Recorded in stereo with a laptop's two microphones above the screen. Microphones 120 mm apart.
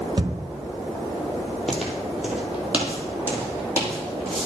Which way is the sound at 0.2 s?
40° right (ahead or behind).